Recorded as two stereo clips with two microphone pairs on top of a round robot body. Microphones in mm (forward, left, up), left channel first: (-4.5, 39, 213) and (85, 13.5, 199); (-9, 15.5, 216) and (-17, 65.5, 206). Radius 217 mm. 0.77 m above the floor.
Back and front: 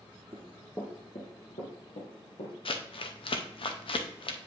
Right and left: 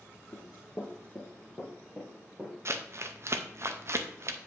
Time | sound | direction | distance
0.3 | running footsteps | 75° right | 0.8 m
2.6 | crumpling | 135° left | 0.7 m